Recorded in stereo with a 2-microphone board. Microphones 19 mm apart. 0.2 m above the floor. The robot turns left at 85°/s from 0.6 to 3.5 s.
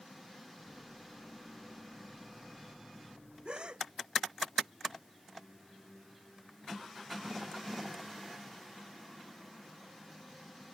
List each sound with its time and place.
3.5 s a gasp: 55° right (ahead or behind); by 3.9 s 60° right (ahead or behind)